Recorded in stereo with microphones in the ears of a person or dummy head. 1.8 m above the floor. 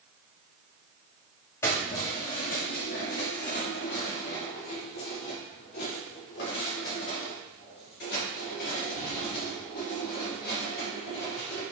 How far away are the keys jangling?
About 1.2 m.